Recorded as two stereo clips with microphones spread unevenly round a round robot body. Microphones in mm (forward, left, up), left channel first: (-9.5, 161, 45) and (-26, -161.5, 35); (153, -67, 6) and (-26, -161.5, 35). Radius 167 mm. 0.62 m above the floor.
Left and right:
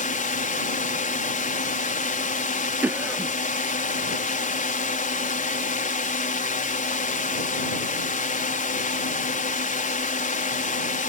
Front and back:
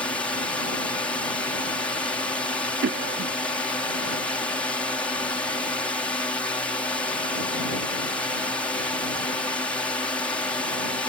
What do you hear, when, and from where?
0.0 s a drone: 80° left
2.8 s a cough: 175° right